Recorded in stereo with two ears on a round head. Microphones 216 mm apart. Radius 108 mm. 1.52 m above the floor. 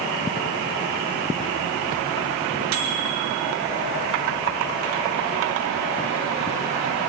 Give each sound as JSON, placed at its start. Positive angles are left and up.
{"t": 2.7, "sound": "a microwave", "side_deg": -80, "distance_m": 3.0}